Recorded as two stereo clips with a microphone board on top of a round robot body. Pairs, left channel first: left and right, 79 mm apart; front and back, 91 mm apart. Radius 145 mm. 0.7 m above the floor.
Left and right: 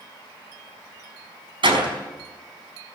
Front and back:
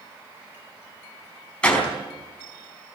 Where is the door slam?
80° right, 4.5 m.